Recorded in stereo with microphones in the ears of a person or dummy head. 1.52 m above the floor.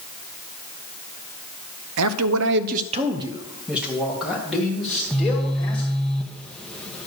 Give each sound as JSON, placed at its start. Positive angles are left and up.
{"t": 2.0, "sound": "a man speaking", "side_deg": -80, "distance_m": 0.5}
{"t": 4.9, "sound": "a phone buzzing", "side_deg": 10, "distance_m": 0.9}